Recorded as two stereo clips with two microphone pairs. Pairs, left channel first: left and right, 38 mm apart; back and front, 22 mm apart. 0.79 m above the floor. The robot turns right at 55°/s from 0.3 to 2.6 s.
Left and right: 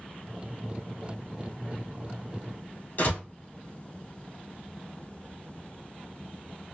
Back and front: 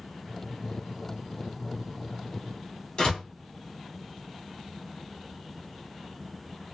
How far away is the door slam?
About 1.4 m.